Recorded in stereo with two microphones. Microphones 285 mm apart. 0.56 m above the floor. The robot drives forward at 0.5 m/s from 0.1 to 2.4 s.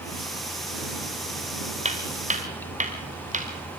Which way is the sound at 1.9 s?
25° right (ahead or behind).